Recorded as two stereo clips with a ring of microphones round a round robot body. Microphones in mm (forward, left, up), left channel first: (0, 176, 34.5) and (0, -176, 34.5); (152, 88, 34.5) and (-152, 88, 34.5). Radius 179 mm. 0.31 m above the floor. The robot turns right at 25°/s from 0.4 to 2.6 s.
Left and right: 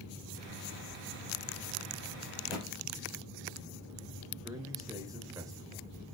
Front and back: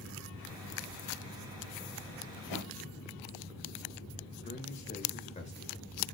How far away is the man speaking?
About 1.1 m.